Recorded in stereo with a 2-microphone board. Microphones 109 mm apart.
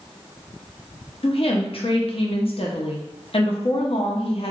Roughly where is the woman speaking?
Left.